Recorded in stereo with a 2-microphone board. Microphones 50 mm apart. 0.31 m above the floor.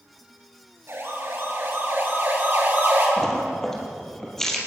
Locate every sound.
0.9 s a siren: 60° right (ahead or behind), 6.5 m; by 3.1 s 40° right (ahead or behind), 8.5 m
3.2 s a splash: 10° left (ahead or behind), 4 m